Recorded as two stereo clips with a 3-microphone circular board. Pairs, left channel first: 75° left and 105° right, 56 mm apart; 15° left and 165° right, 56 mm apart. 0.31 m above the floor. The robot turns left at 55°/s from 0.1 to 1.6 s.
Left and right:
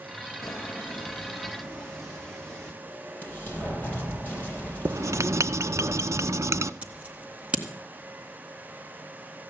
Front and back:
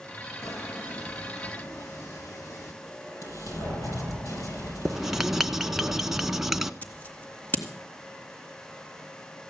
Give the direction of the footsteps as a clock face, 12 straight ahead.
11 o'clock.